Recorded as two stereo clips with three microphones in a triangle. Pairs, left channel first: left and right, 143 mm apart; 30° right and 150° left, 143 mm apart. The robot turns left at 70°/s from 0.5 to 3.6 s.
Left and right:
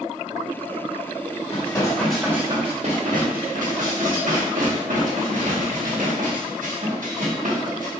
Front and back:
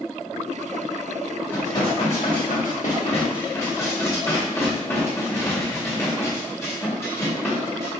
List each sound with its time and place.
1.5 s dishes clattering: 45° left, 1.1 m; by 7.9 s 105° right, 1.1 m